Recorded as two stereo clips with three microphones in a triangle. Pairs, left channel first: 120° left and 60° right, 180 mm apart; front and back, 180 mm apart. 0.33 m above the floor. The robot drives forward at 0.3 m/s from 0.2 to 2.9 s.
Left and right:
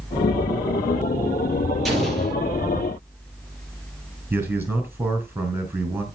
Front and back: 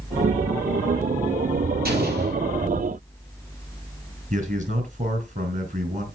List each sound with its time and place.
1.9 s an explosion: 150° right, 5 m
4.3 s a man speaking: 140° right, 4 m